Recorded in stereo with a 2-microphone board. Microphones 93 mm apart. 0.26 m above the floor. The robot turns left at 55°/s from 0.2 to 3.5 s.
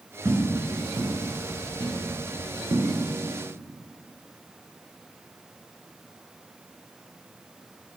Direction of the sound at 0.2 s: 35° right (ahead or behind).